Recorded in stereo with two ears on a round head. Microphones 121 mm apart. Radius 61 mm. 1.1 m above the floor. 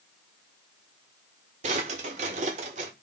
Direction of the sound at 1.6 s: 55° right (ahead or behind).